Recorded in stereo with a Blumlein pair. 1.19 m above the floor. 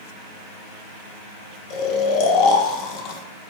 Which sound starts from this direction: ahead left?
Snoring, at 1.7 s.